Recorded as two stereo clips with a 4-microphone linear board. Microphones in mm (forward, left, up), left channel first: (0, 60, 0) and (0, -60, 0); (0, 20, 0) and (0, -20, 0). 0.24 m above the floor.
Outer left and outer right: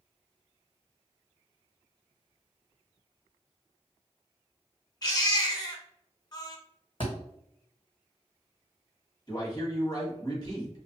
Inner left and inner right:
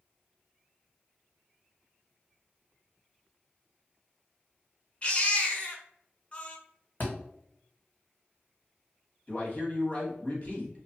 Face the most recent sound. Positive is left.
turn(degrees=35)  # may be behind; listen again after turning